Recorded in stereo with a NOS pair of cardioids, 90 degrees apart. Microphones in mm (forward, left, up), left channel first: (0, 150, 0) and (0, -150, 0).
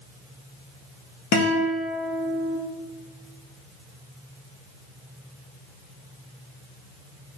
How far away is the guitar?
About 1.4 m.